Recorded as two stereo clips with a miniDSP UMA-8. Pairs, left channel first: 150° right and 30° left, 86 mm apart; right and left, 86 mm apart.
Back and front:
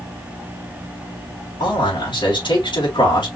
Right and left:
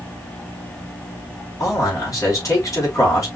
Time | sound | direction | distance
1.6 | a man speaking | 135° right | 4 m